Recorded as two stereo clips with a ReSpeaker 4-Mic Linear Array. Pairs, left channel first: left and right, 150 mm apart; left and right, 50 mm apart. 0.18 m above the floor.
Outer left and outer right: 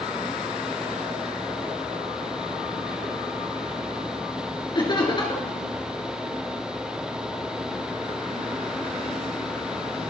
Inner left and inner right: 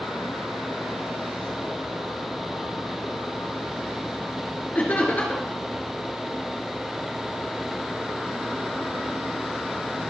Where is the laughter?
30° left (ahead or behind), 2.5 m.